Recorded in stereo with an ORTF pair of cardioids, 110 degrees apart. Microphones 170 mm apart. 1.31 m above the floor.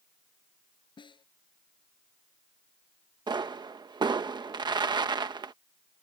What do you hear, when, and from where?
1.0 s a snare drum: 25° left
3.3 s a pop: 25° right